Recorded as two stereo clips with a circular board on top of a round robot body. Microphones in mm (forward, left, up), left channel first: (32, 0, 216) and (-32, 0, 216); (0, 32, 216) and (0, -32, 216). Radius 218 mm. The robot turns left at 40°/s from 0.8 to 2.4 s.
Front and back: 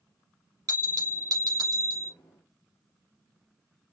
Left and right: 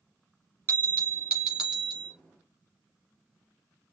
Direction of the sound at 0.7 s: 145° right.